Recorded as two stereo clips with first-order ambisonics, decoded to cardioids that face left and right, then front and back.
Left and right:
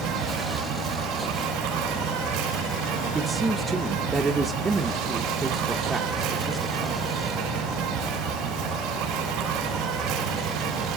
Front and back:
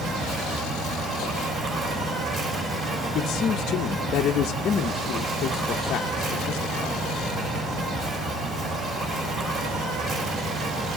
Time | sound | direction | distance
0.0 | an insect | 120° right | 3 m
3.1 | a man speaking | 20° right | 0.5 m